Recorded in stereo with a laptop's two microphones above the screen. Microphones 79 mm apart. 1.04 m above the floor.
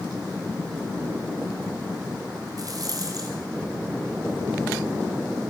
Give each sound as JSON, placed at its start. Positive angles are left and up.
{"t": 2.6, "sound": "a rattle", "side_deg": -50, "distance_m": 5.5}